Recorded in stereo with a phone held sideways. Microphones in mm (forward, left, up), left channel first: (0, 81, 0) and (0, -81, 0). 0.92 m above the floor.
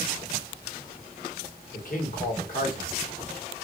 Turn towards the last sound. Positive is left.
turn(degrees=55)  # may be behind; listen again after turning